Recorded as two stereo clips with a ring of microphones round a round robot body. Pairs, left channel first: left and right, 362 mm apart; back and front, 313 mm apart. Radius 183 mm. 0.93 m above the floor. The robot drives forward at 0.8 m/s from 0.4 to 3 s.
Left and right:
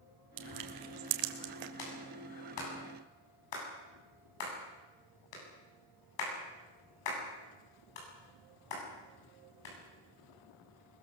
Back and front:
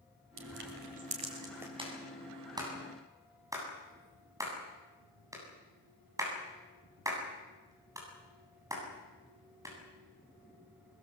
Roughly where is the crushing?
Ahead right.